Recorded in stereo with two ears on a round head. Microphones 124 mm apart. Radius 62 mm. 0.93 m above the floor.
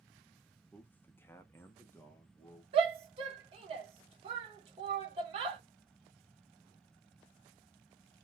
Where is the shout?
40° right (ahead or behind), 1.1 m.